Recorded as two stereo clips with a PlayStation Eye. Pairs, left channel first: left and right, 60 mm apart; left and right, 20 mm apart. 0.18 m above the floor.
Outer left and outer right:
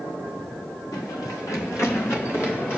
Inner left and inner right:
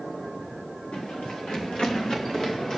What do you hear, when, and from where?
0.9 s running footsteps: 75° left (ahead or behind), 3.5 m; by 2.8 s 40° left (ahead or behind), 4.5 m